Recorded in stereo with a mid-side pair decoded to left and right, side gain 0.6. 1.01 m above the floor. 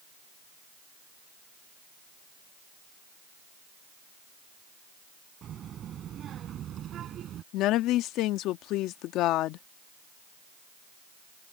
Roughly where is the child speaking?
Ahead right.